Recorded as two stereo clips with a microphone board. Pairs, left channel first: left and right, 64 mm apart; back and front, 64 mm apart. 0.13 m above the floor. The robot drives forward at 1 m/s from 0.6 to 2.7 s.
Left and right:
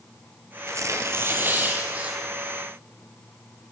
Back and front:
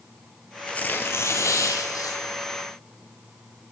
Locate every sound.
0.7 s tearing paper: 110° right, 0.9 m; by 2.2 s 160° right, 2 m